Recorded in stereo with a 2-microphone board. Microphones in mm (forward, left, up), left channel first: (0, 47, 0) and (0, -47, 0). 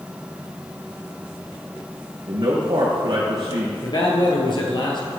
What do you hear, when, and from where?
2.3 s a man speaking: 60° right (ahead or behind), 4.5 m
3.8 s a man speaking: 50° left (ahead or behind), 2.5 m